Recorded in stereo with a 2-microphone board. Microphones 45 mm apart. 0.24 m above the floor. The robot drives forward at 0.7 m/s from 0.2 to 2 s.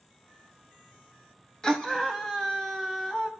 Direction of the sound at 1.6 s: 15° left (ahead or behind).